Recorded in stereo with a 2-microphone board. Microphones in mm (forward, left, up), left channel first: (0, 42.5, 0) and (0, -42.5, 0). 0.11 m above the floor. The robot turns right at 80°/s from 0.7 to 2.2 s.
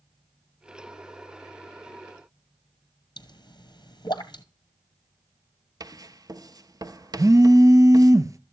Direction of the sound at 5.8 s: 45° right (ahead or behind).